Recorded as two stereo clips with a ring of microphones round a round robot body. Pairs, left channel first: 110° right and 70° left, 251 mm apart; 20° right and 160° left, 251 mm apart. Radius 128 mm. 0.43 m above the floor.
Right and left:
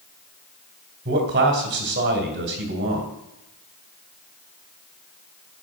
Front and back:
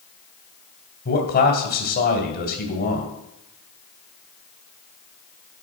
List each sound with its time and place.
1.1 s a man speaking: 20° left, 2.0 m